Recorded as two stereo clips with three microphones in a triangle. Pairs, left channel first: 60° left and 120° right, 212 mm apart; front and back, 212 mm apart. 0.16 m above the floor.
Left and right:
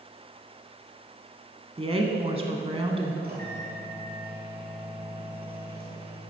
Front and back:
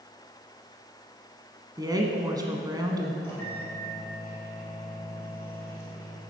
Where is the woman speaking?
130° right, 1.1 m.